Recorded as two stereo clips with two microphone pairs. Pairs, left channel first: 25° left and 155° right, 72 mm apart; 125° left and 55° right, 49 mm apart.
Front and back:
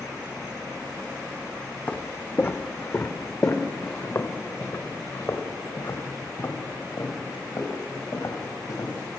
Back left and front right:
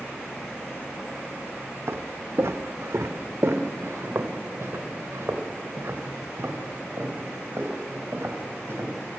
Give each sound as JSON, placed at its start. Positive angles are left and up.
{"t": 1.9, "sound": "footsteps", "azimuth_deg": -40, "distance_m": 1.3}